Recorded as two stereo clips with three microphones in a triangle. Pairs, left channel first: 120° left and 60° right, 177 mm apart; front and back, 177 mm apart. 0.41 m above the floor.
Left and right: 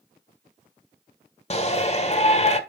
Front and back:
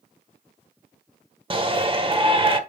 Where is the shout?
140° left, 1.5 m.